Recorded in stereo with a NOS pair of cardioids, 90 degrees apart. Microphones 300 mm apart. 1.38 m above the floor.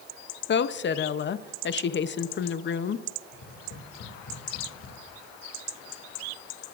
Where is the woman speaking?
40° left, 0.6 m.